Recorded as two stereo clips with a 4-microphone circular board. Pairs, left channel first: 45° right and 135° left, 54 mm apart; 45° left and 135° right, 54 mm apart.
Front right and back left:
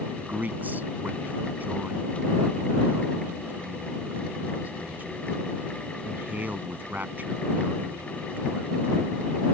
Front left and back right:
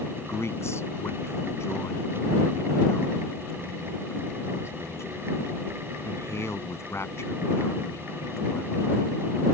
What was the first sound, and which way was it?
A man speaking, 80° left.